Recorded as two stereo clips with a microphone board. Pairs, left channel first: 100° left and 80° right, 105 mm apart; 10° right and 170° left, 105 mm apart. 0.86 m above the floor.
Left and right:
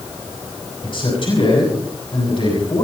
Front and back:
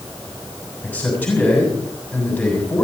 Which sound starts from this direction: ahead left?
A man speaking, at 0.8 s.